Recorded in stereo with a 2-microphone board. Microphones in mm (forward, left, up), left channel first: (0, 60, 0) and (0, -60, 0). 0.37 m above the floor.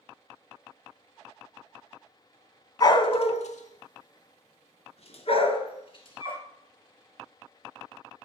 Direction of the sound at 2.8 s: 35° left (ahead or behind).